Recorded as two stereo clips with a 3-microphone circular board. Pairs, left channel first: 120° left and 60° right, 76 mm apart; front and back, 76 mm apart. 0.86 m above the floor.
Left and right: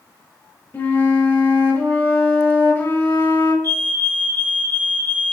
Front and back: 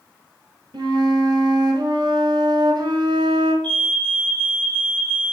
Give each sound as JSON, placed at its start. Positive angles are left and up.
{"t": 0.7, "sound": "a flute", "azimuth_deg": -175, "distance_m": 1.9}
{"t": 3.6, "sound": "a fire alarm", "azimuth_deg": 70, "distance_m": 4.0}